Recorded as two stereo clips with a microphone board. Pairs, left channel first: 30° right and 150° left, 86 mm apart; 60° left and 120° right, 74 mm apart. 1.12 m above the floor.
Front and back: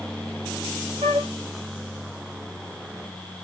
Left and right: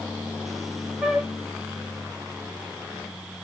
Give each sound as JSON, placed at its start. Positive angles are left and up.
{"t": 1.0, "sound": "a flute", "azimuth_deg": 165, "distance_m": 0.6}